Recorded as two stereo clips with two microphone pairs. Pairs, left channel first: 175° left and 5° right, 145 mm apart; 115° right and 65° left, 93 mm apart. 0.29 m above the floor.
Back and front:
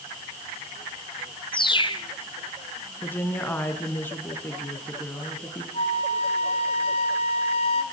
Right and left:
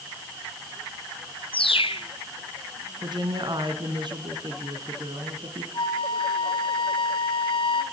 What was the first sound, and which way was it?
A bird, 130° right.